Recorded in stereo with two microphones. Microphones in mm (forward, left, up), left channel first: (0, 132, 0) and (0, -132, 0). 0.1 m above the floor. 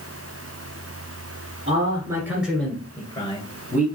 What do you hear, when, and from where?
1.7 s a man speaking: 25° right (ahead or behind), 1.7 m; by 3.9 s 35° left (ahead or behind), 2 m